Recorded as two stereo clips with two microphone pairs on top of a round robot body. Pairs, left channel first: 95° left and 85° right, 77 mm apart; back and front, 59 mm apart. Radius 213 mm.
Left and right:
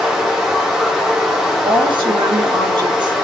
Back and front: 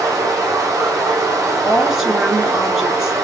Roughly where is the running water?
Ahead.